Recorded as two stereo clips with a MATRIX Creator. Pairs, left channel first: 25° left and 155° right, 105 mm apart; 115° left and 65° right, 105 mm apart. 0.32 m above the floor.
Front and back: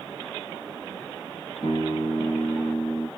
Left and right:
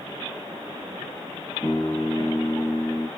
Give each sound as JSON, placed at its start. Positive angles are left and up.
{"t": 1.6, "sound": "a guitar", "azimuth_deg": 45, "distance_m": 1.9}